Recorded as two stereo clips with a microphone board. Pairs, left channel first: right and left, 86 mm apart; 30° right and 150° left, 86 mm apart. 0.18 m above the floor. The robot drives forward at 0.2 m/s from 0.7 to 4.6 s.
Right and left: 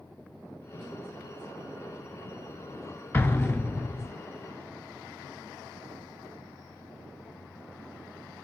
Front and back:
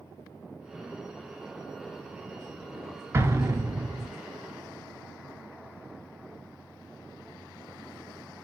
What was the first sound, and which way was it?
An explosion, 155° right.